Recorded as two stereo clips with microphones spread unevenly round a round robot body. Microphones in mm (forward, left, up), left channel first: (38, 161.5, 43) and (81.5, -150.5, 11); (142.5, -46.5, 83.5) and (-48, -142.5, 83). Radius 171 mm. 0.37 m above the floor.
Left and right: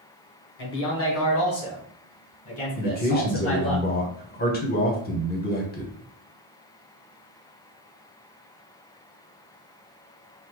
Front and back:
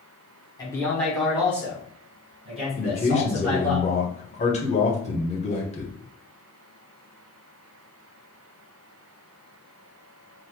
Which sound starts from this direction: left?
A man speaking, at 0.6 s.